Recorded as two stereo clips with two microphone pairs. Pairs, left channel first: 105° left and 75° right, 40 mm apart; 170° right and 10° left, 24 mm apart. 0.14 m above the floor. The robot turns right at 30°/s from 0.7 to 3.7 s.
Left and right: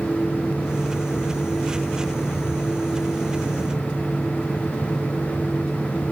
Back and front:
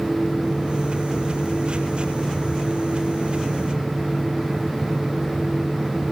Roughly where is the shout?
No shout in this recording.